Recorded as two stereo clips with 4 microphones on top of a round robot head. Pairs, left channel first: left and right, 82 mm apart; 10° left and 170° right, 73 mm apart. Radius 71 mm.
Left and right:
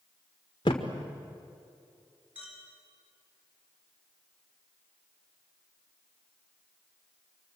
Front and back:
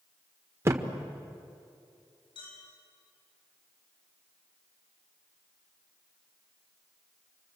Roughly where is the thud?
Behind left.